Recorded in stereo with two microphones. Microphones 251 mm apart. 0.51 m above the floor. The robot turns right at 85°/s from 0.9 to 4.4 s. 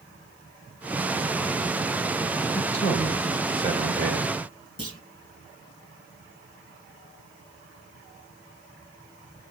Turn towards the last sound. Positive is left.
turn(degrees=65)  # may be behind; listen again after turning